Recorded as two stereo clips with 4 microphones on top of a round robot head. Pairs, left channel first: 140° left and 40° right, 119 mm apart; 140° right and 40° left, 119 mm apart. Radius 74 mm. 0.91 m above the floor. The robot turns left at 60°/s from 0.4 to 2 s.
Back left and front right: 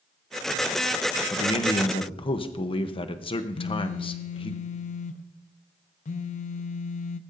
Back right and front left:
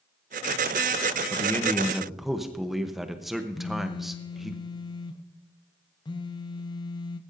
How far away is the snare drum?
No snare drum in this recording.